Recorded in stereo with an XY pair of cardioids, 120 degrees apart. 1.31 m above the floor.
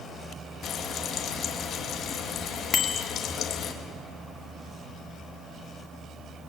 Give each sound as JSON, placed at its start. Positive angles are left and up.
{"t": 0.6, "sound": "frying", "azimuth_deg": 55, "distance_m": 2.5}
{"t": 2.7, "sound": "a bicycle bell", "azimuth_deg": 40, "distance_m": 2.5}